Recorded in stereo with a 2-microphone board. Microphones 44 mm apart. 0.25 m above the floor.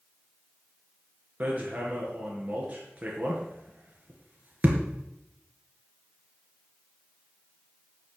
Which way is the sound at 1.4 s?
30° right (ahead or behind).